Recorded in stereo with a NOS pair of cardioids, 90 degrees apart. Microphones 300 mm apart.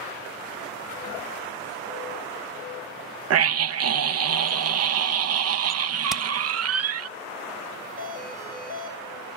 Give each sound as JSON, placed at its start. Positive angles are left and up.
{"t": 3.3, "sound": "a scream", "azimuth_deg": -50, "distance_m": 0.9}
{"t": 6.1, "sound": "hammering", "azimuth_deg": 0, "distance_m": 0.7}
{"t": 8.0, "sound": "a doorbell", "azimuth_deg": -25, "distance_m": 7.5}